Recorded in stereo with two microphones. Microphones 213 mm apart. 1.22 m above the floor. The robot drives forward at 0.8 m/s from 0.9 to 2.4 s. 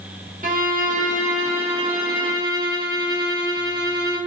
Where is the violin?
40° right (ahead or behind), 1.4 m; by 4.2 s 20° right (ahead or behind), 2.5 m.